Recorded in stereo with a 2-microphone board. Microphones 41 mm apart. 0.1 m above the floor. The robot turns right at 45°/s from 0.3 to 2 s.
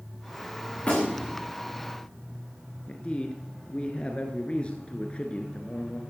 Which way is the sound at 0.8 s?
30° left (ahead or behind).